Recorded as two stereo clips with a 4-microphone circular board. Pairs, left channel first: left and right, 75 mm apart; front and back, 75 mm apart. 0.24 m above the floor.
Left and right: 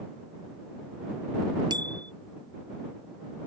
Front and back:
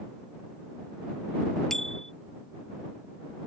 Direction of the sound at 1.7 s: 85° right.